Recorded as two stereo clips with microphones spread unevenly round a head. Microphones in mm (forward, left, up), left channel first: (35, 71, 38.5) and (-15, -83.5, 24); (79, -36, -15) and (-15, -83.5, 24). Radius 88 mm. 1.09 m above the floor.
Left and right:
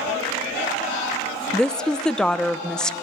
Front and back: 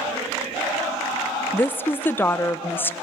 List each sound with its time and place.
1.5 s a woman speaking: 15° right, 0.7 m